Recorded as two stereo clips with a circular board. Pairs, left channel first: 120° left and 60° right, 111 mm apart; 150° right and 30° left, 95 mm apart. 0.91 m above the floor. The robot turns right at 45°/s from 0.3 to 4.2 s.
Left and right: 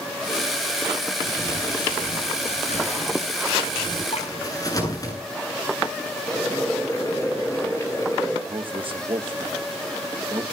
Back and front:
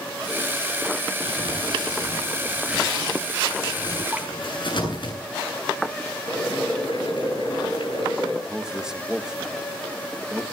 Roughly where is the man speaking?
Ahead right.